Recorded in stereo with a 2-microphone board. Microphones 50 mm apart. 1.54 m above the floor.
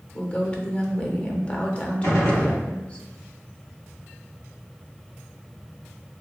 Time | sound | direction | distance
0.1 | a woman speaking | 25° left (ahead or behind) | 0.5 m
2.0 | a gunshot | 75° left (ahead or behind) | 1.1 m